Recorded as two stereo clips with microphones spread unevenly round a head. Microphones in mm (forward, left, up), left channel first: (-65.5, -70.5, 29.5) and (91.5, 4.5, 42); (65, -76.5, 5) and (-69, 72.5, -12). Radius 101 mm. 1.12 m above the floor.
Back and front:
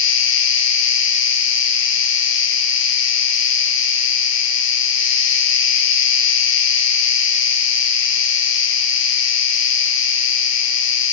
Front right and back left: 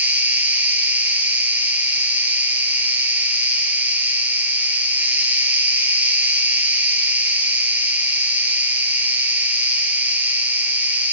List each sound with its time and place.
0.0 s an insect: 145° right, 1.1 m